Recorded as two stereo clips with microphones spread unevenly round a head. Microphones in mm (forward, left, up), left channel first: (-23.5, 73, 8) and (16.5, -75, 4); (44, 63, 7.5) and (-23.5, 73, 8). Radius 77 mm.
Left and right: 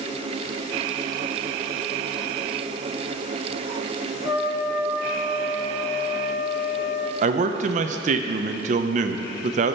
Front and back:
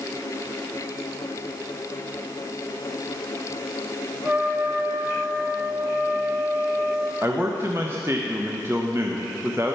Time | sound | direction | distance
4.2 | a trumpet | 115° left | 1.0 m
7.2 | a man speaking | 115° right | 0.6 m